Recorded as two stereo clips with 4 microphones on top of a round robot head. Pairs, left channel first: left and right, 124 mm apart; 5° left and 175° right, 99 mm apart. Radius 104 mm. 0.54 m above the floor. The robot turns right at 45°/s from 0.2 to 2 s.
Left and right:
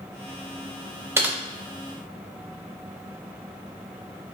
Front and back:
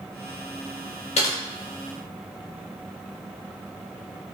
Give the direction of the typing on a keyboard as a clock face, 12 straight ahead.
1 o'clock.